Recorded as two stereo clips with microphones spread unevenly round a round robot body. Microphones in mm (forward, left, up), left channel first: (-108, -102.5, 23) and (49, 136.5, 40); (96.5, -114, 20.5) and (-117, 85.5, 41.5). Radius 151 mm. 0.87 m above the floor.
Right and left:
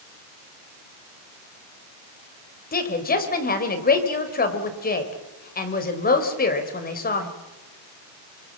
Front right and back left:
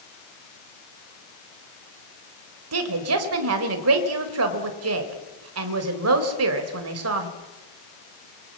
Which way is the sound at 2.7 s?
Straight behind.